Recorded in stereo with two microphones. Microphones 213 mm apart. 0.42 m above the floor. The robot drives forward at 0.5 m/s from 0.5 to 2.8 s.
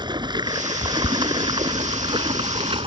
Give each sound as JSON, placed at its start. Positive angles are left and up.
{"t": 0.0, "sound": "running water", "side_deg": -20}